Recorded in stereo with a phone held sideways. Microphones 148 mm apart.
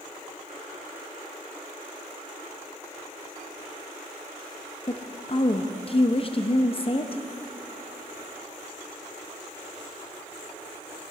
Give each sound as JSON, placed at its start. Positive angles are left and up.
{"t": 4.9, "sound": "a woman speaking", "side_deg": 40, "distance_m": 0.6}